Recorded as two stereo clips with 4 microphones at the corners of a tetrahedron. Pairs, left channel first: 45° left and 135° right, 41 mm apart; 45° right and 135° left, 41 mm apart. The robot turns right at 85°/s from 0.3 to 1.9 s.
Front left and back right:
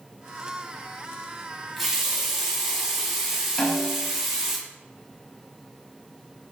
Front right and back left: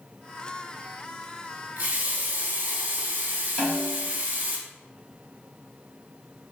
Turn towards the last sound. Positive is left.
turn(degrees=45)